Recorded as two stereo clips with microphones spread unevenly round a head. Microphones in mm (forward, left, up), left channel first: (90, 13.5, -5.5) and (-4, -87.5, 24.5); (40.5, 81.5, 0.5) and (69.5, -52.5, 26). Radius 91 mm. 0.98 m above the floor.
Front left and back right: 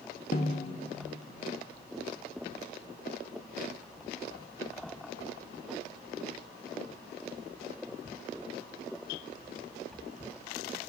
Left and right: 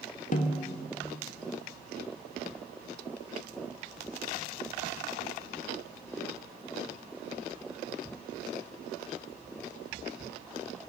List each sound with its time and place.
0.3 s a snare drum: 80° left, 1.1 m